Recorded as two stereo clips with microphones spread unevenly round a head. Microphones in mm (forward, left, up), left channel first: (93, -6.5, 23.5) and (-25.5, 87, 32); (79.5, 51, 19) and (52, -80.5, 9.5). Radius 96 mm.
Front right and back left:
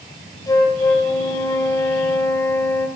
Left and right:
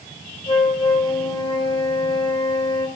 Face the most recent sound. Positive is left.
turn(degrees=30)